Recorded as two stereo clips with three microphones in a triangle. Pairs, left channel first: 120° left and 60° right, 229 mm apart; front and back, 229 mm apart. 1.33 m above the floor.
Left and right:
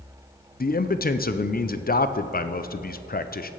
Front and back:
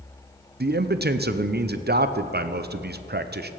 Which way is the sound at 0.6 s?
155° left.